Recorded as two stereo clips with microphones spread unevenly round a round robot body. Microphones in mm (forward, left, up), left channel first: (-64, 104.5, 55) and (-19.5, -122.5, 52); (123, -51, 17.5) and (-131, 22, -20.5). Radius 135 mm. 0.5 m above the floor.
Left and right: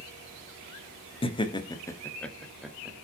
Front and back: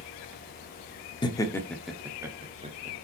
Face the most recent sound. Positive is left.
turn(degrees=-160)